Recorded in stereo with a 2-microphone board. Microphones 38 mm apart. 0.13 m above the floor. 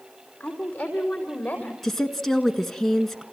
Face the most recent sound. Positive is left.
turn(degrees=10)  # may be behind; listen again after turning